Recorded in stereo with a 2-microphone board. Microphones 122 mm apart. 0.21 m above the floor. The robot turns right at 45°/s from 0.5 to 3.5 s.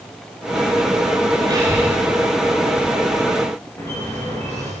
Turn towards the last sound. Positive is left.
turn(degrees=20)  # may be behind; listen again after turning